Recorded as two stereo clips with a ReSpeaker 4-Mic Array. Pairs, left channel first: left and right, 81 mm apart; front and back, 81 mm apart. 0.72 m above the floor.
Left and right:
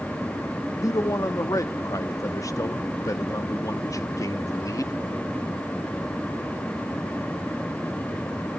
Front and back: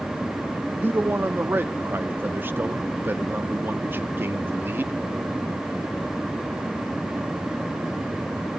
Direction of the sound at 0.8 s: 125° left.